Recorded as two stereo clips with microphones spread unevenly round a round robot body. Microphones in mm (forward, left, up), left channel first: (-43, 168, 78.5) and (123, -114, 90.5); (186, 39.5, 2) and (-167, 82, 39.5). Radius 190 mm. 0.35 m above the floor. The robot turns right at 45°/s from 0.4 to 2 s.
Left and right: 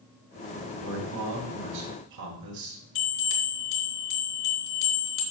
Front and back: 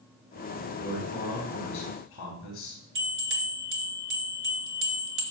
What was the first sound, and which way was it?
A man speaking, 110° right.